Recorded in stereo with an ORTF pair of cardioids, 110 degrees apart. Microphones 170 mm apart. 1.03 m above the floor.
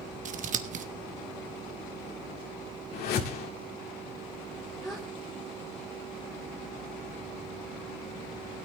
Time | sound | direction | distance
0.2 | scissors | 50° right | 1.0 m
2.9 | a whoosh | 70° left | 2 m
4.8 | a gasp | straight ahead | 2.5 m